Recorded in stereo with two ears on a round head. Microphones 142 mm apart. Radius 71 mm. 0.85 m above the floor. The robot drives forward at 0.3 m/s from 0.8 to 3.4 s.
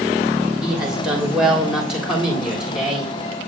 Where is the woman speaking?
5° right (ahead or behind), 2.5 m.